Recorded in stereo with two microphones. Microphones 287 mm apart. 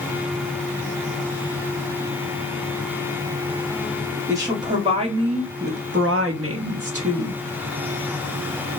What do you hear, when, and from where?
4.3 s a woman speaking: 10° right (ahead or behind), 1.6 m; by 7.4 s 50° right (ahead or behind), 1.0 m